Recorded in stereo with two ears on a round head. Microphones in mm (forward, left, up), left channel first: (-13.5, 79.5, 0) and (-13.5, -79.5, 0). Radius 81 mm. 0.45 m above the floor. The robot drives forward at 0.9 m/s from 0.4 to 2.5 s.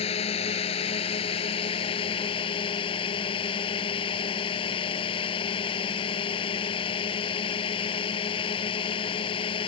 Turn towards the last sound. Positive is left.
turn(degrees=35)  # may be behind; listen again after turning